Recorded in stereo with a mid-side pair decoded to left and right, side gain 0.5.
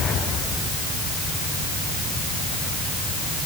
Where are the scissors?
I don't hear scissors.